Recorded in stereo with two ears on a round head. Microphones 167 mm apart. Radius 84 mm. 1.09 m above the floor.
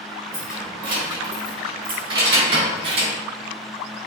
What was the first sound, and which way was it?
Keys jangling, 25° right (ahead or behind).